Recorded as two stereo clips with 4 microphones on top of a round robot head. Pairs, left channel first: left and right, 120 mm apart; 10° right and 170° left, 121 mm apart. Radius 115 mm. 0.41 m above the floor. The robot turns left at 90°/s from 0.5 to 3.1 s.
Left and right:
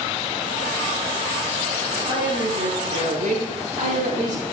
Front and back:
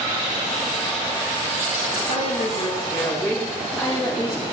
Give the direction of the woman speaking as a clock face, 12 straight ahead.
12 o'clock.